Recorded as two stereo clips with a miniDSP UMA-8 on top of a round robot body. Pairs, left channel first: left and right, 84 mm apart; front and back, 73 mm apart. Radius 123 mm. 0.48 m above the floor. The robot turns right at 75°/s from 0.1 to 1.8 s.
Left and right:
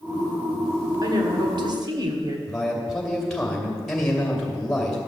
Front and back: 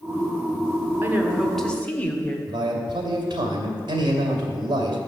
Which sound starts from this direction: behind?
A man speaking, at 2.5 s.